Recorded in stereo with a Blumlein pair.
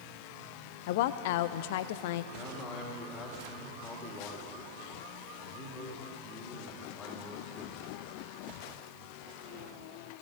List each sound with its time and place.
0.9 s a woman speaking: 50° left, 0.7 m
2.3 s a man speaking: 25° left, 2.5 m